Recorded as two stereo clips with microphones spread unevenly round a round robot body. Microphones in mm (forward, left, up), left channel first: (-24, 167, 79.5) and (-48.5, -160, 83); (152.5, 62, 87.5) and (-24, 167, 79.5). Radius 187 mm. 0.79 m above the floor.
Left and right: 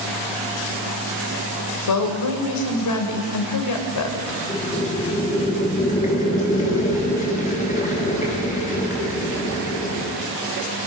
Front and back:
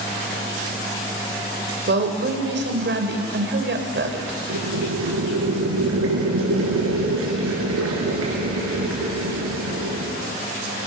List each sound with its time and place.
1.9 s a woman speaking: 120° left, 3 m
4.5 s boiling: 155° left, 6 m